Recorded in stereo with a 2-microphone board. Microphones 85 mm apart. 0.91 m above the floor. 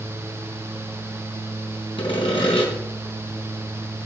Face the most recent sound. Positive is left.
turn(degrees=75)  # may be behind; listen again after turning